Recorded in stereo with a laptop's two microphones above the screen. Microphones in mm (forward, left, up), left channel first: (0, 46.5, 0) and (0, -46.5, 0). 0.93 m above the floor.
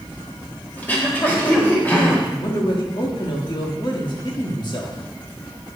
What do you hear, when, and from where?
0.8 s throat clearing: 20° left (ahead or behind), 1.3 m
2.3 s a man speaking: 55° left (ahead or behind), 1.6 m